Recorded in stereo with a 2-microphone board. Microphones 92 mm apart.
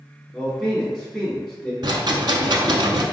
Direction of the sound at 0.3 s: 5° left (ahead or behind).